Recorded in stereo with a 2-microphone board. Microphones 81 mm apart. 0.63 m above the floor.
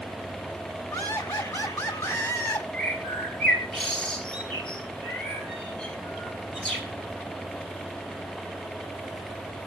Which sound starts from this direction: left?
Laughter, at 0.9 s.